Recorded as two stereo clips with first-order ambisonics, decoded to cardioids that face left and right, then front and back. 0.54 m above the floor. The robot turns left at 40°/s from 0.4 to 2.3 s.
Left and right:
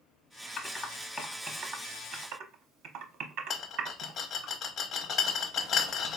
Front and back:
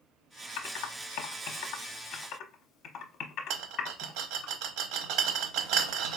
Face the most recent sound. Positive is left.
turn(degrees=155)